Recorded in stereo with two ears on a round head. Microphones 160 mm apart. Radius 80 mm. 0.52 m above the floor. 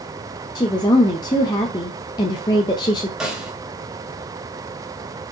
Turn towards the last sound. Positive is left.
turn(degrees=-5)  # may be behind; listen again after turning